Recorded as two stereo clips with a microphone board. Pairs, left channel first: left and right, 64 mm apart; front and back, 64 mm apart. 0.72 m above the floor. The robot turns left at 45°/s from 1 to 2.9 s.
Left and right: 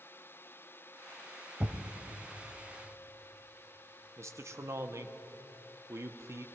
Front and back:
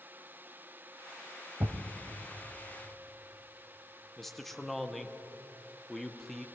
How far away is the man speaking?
About 0.7 m.